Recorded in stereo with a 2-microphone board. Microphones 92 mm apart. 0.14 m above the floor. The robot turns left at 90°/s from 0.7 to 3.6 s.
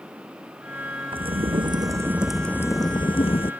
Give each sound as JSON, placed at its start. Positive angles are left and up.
{"t": 1.1, "sound": "a crack", "azimuth_deg": -70}